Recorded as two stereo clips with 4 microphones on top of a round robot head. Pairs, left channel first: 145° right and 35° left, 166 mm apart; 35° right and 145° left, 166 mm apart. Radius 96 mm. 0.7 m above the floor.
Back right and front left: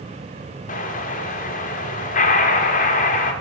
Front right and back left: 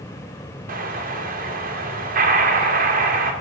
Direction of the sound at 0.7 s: 175° left.